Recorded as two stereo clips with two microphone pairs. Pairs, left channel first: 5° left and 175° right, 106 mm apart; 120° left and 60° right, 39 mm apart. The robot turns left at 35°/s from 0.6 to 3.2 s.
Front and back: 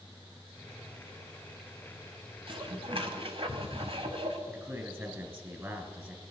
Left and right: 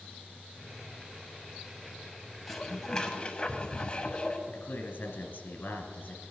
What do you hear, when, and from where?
2.5 s dishes clattering: 150° right, 1.1 m; by 4.4 s 175° right, 1.1 m
4.5 s a man speaking: 120° left, 1.9 m